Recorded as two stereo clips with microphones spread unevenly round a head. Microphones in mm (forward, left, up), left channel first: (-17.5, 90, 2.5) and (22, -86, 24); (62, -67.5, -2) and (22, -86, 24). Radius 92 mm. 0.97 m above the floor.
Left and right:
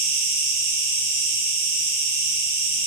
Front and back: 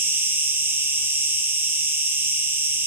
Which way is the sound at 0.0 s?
90° right.